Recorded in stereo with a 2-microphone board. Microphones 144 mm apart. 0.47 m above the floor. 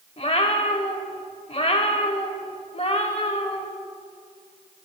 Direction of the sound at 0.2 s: 45° left (ahead or behind).